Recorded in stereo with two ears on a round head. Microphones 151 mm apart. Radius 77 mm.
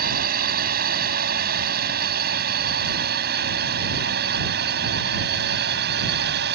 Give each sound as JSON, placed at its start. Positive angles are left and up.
{"t": 0.0, "sound": "a drone", "side_deg": -60}